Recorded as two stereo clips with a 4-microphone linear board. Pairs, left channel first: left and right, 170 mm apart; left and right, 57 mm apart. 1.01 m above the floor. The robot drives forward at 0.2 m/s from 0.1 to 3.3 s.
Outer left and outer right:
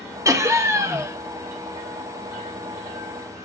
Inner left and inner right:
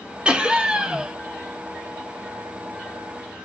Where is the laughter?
20° right (ahead or behind), 1.0 m; by 1.2 s 15° right (ahead or behind), 1.1 m.